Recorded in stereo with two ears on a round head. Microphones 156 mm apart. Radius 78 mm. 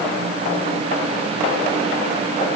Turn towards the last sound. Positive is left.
No sound to turn to.